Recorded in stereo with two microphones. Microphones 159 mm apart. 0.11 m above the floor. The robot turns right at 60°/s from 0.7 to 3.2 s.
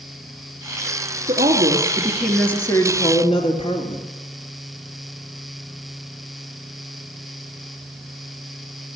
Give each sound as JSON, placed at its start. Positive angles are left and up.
{"t": 1.3, "sound": "a woman speaking", "azimuth_deg": -60, "distance_m": 1.9}